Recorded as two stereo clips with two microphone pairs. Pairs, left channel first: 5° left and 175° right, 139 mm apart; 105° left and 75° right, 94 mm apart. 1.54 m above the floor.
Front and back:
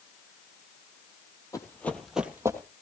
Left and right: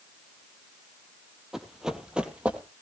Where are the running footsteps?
10° left, 1.7 m; by 2.6 s 135° right, 1.7 m.